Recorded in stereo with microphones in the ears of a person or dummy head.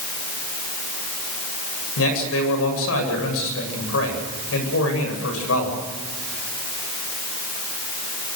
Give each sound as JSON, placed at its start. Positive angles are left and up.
{"t": 2.0, "sound": "a man speaking", "side_deg": 85, "distance_m": 8.5}